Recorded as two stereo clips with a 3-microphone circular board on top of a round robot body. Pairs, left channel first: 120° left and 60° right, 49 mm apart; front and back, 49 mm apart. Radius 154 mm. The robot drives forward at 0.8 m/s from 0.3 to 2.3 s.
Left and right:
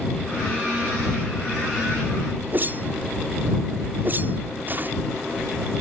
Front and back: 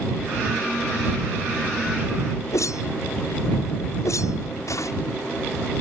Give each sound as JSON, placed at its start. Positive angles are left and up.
{"t": 2.5, "sound": "a whoosh", "azimuth_deg": -10}